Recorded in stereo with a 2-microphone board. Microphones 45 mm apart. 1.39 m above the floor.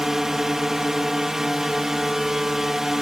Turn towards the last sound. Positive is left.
turn(degrees=-10)  # may be behind; listen again after turning